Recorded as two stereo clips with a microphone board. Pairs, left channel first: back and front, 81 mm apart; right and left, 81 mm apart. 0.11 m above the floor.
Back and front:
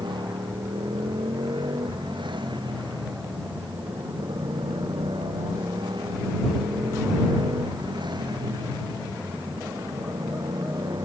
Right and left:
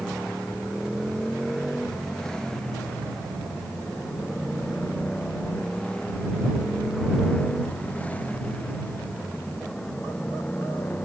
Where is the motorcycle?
5° right; by 11.1 s 25° right.